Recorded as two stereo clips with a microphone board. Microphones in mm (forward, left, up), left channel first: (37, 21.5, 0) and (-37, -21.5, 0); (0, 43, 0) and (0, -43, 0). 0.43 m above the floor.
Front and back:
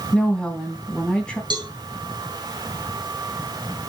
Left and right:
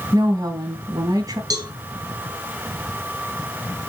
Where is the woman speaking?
50° right, 2.5 m.